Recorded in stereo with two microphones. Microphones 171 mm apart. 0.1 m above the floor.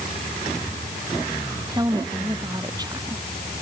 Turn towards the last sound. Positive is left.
turn(degrees=-25)  # may be behind; listen again after turning